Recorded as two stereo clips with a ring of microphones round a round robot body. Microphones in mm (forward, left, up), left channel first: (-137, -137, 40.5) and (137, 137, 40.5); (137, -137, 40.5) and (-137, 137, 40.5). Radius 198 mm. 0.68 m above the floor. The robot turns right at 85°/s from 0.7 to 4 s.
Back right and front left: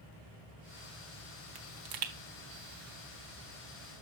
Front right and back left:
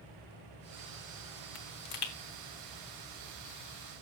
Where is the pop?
25° right, 1.2 m; by 2.1 s 20° left, 1.2 m.